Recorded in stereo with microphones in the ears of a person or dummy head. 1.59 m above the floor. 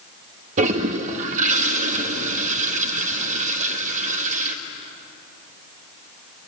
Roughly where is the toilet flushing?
Right.